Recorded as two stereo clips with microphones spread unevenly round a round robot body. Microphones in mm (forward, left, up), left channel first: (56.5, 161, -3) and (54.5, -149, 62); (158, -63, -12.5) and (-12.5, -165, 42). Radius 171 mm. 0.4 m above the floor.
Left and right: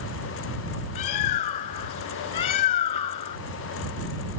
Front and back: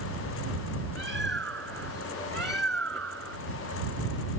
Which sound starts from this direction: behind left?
A bird, at 0.9 s.